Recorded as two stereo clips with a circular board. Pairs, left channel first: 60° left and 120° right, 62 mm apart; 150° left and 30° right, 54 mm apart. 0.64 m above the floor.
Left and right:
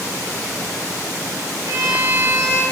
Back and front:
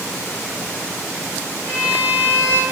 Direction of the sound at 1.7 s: 160° right.